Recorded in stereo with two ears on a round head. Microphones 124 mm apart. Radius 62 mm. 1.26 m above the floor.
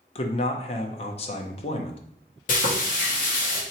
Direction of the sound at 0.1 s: 45° left (ahead or behind).